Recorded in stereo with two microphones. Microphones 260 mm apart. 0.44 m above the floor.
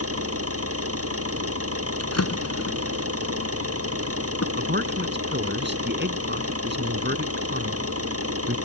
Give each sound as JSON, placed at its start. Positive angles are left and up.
{"t": 0.0, "sound": "an engine running", "side_deg": -60}
{"t": 2.0, "sound": "a drawer", "side_deg": 75}
{"t": 4.6, "sound": "a man speaking", "side_deg": -45}